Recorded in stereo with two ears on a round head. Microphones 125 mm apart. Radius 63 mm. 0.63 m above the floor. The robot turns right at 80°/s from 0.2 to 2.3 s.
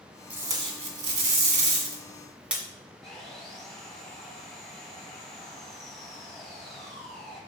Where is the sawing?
5° left (ahead or behind), 4 m.